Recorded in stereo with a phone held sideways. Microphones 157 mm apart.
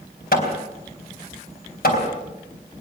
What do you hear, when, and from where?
0.3 s hammering: 70° left (ahead or behind), 4 m